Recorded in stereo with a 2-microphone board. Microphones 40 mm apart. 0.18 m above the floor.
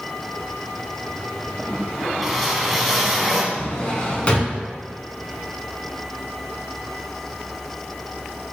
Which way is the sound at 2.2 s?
5° right (ahead or behind).